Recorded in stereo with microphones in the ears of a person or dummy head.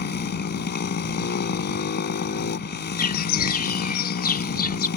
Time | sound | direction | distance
0.0 | a motorcycle | 55° left (ahead or behind) | ?
3.0 | a bird | 45° left (ahead or behind) | ?